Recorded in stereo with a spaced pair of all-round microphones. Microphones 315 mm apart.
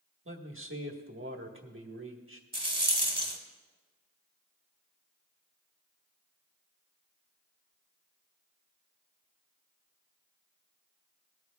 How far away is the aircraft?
I don't hear an aircraft.